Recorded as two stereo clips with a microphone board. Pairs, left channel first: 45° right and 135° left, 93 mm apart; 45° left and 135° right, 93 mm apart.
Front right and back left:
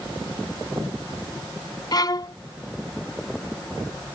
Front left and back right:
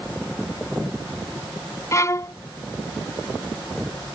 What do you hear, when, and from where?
1.9 s a violin: 5° right